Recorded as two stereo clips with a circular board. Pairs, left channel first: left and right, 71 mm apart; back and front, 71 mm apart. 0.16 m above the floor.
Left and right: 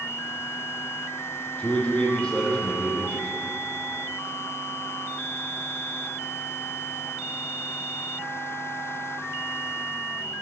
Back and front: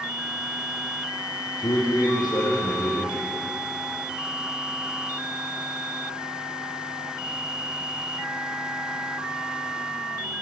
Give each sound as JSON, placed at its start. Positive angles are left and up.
{"t": 1.6, "sound": "a man speaking", "azimuth_deg": 165, "distance_m": 5.0}